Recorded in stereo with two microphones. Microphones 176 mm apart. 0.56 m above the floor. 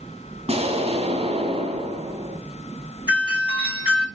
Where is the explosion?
35° right (ahead or behind), 1.6 m.